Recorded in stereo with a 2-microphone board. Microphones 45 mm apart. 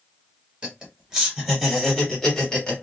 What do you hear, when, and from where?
0.6 s laughter: 20° right (ahead or behind), 1.7 m; by 2.8 s 20° left (ahead or behind), 1.5 m